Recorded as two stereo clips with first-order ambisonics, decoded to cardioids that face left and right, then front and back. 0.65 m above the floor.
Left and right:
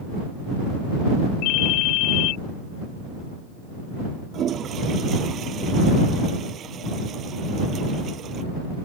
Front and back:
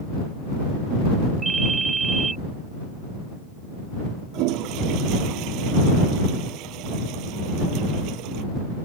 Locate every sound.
1.4 s a ringtone: 105° left
4.3 s a toilet flushing: 150° right